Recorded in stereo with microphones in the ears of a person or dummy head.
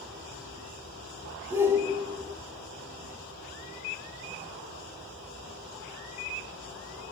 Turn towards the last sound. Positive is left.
turn(degrees=-15)  # may be behind; listen again after turning